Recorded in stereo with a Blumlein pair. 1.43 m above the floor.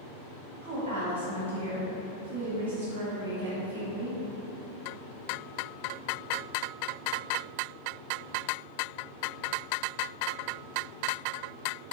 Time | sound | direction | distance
0.6 | a woman speaking | 60° right | 1.2 m